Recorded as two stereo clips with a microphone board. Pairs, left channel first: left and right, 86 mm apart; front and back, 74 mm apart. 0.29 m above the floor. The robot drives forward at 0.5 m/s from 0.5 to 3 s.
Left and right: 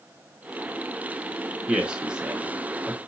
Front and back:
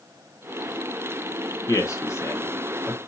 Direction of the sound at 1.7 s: 15° right.